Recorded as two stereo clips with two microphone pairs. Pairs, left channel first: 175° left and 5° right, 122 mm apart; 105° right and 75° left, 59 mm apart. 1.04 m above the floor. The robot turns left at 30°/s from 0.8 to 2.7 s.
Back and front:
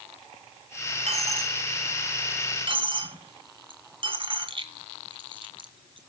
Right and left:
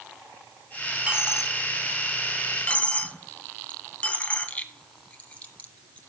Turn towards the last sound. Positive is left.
turn(degrees=-40)